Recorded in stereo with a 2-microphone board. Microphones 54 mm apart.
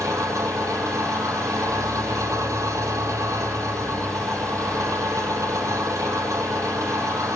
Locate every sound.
0.0 s an engine running: 80° right, 5.5 m